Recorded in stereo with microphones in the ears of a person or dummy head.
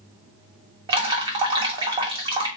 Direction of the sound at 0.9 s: 25° right (ahead or behind).